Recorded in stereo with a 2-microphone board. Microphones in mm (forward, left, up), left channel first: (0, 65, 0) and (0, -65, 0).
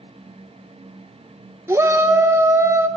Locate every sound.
1.7 s a shout: 20° right (ahead or behind), 1.3 m